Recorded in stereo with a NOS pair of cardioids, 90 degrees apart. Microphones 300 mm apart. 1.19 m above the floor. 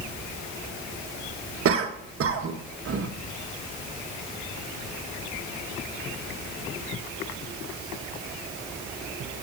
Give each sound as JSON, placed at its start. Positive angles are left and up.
{"t": 1.6, "sound": "a cough", "azimuth_deg": -50, "distance_m": 1.5}